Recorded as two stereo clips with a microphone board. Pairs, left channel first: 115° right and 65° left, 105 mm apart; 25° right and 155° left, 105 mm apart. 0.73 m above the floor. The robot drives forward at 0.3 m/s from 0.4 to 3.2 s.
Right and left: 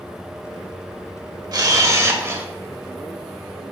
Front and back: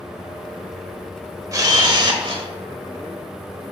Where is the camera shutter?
110° left, 0.6 m; by 2.5 s 130° left, 0.8 m.